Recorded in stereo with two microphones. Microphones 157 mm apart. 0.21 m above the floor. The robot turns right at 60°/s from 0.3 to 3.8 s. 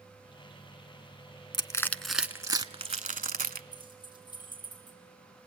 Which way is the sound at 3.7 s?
25° left (ahead or behind).